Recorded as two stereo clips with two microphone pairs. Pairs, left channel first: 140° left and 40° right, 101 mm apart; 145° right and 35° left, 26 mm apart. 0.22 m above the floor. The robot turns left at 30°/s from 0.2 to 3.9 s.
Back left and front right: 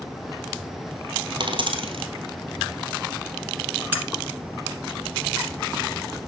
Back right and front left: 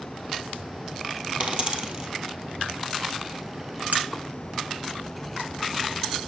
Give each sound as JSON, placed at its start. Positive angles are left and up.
{"t": 1.4, "sound": "a dropped coin", "azimuth_deg": 0, "distance_m": 1.5}
{"t": 3.9, "sound": "cutlery clinking", "azimuth_deg": 25, "distance_m": 1.5}